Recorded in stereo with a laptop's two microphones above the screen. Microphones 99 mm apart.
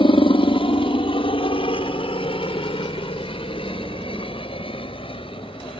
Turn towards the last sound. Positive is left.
turn(degrees=60)  # may be behind; listen again after turning